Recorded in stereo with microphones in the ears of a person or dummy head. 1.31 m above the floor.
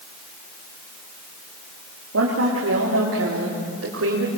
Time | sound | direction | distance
2.1 | a woman speaking | 75° right (ahead or behind) | 3.5 m